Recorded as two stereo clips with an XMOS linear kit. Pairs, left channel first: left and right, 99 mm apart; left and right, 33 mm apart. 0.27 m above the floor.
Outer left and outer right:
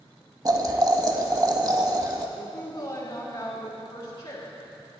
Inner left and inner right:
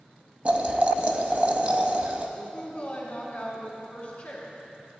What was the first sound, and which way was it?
Boiling, 40° right (ahead or behind).